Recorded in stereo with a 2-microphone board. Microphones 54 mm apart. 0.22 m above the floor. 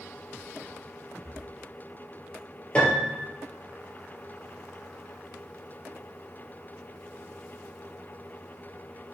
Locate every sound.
1.2 s breathing: 60° right (ahead or behind), 1.0 m
2.8 s a piano: 25° left (ahead or behind), 2 m